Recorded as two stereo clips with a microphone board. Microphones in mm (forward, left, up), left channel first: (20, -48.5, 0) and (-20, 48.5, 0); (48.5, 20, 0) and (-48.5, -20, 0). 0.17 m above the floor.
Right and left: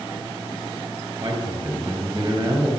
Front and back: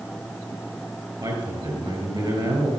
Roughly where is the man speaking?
Behind.